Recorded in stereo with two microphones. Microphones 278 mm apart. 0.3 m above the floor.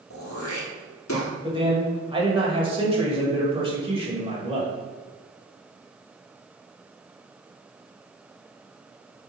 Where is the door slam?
I don't hear a door slam.